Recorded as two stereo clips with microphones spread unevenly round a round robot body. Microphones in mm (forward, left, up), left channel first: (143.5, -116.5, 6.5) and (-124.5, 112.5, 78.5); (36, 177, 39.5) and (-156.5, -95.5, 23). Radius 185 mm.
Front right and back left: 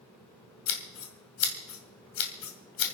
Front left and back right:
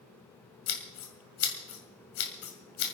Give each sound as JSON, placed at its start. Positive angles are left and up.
{"t": 0.7, "sound": "scissors", "azimuth_deg": 0, "distance_m": 2.0}